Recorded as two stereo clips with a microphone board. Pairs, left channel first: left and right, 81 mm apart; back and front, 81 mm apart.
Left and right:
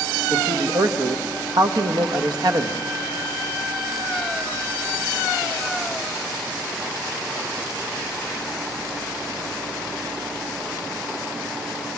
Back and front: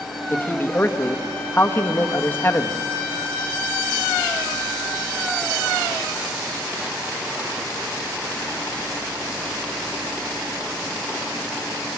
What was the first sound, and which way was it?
A man speaking, 115° right.